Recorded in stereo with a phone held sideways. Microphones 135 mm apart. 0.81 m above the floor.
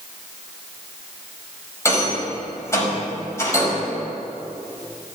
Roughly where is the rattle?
Centre.